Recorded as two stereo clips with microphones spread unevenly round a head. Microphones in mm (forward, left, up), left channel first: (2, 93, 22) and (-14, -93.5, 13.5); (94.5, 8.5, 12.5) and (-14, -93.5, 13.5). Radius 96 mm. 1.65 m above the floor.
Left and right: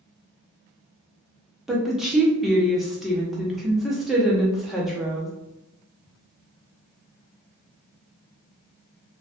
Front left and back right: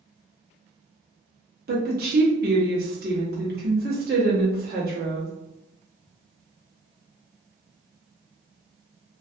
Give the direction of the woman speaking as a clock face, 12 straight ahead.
6 o'clock.